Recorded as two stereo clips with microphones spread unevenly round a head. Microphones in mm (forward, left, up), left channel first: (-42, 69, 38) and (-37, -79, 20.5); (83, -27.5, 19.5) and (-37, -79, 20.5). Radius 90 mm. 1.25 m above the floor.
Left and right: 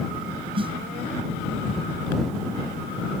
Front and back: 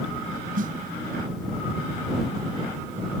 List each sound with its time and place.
0.6 s a snare drum: 145° right